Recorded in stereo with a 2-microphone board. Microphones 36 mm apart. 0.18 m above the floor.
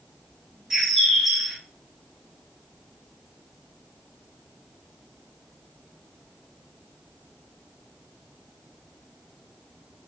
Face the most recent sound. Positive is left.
turn(degrees=-5)  # may be behind; listen again after turning